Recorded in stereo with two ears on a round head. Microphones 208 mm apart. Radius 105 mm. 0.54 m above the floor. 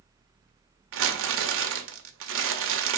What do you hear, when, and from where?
0.9 s crumpling: 60° right (ahead or behind), 1.7 m